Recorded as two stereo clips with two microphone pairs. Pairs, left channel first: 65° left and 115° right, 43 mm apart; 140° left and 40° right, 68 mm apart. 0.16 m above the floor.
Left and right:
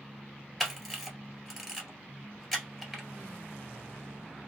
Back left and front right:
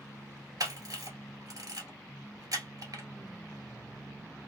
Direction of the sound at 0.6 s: 20° right.